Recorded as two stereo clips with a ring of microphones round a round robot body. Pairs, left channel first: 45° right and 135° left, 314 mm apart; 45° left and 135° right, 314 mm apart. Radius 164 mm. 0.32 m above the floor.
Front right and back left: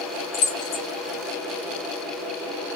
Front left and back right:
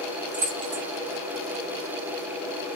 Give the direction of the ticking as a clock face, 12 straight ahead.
No ticking in this recording.